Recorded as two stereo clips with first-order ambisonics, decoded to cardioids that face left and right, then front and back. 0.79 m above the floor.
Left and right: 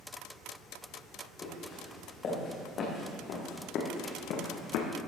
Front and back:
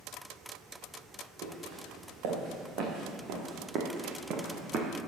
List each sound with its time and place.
1.4 s footsteps: 155° left, 4.5 m; by 4.9 s 120° left, 2.5 m